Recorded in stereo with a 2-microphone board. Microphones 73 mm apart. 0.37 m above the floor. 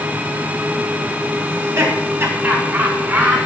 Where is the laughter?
40° right (ahead or behind), 2.5 m; by 3.4 s 30° right (ahead or behind), 4 m.